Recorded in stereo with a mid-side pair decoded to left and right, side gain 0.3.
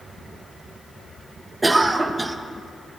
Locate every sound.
1.6 s a cough: 25° right, 0.6 m